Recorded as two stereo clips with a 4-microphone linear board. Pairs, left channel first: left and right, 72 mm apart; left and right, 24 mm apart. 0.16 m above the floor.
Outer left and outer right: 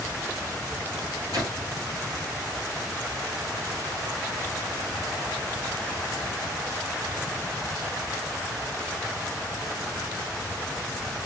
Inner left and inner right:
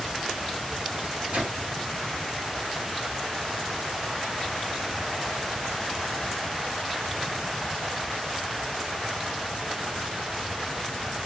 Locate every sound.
1.0 s a microwave: 60° right (ahead or behind), 2.5 m